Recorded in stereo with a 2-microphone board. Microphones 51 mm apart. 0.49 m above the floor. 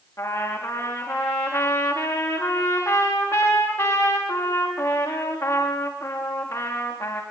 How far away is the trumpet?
About 7 m.